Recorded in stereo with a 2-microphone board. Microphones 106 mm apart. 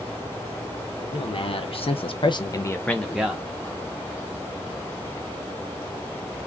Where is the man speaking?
55° left (ahead or behind), 1.1 m; by 3.5 s 5° right (ahead or behind), 0.9 m.